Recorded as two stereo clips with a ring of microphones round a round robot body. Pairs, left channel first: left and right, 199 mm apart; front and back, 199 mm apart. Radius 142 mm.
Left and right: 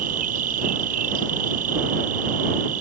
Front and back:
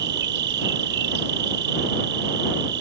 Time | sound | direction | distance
0.0 | an insect | 145° right | ?